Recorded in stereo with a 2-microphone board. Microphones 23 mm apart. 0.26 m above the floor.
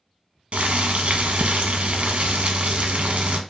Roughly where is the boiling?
Right.